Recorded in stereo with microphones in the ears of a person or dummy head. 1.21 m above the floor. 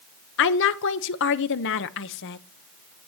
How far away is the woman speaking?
About 0.9 m.